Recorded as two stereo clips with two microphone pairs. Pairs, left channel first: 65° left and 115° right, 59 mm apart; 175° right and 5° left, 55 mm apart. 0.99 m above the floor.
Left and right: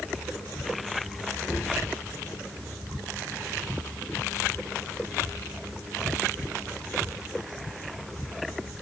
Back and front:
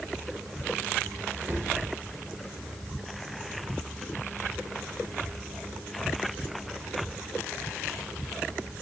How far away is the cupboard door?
About 1.6 m.